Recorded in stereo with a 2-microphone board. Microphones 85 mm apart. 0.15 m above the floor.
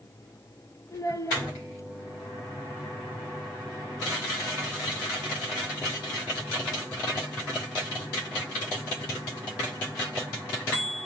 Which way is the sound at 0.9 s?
40° left (ahead or behind).